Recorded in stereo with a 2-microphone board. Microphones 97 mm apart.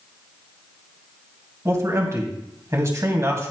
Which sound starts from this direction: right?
A man speaking, at 1.6 s.